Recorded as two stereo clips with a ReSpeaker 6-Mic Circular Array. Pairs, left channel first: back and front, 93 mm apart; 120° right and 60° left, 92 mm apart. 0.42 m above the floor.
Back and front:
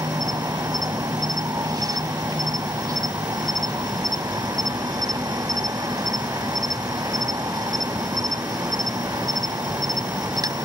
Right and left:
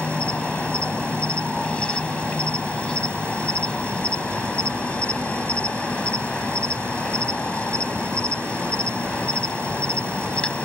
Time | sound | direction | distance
0.0 | an insect | 45° right | ?